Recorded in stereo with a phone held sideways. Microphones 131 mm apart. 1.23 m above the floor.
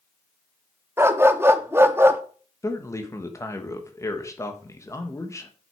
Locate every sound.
1.0 s a dog barking: 20° right (ahead or behind), 0.7 m
2.6 s a man speaking: 25° left (ahead or behind), 1.3 m